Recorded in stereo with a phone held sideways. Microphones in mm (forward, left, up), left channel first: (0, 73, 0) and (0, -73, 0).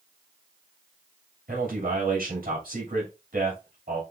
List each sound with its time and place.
1.5 s a man speaking: 75° right (ahead or behind), 3 m